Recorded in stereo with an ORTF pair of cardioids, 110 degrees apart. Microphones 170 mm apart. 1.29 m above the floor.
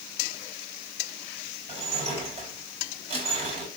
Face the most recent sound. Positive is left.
turn(degrees=-35)